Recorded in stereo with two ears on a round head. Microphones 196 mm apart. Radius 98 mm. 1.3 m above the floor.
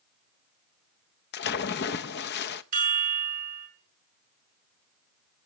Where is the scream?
No scream in this recording.